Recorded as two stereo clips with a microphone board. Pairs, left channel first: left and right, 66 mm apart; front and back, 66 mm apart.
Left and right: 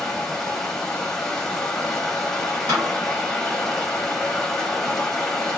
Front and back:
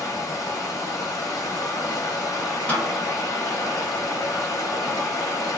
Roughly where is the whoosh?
No whoosh in this recording.